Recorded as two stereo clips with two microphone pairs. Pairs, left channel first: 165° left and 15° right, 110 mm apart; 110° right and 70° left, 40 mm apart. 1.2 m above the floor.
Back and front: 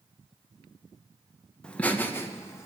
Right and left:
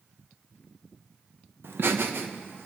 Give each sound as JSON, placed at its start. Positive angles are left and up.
{"t": 1.6, "sound": "laughter", "azimuth_deg": 85, "distance_m": 1.1}